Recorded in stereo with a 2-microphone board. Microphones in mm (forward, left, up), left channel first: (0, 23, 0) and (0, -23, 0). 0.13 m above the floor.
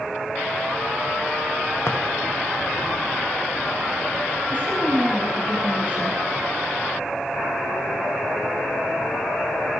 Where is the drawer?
60° left (ahead or behind), 4 m.